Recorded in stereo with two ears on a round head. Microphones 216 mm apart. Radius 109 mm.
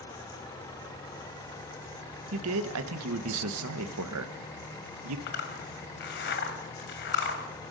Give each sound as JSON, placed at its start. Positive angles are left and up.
{"t": 2.3, "sound": "a man speaking", "side_deg": -60, "distance_m": 1.3}
{"t": 5.3, "sound": "a zipper", "side_deg": 50, "distance_m": 2.5}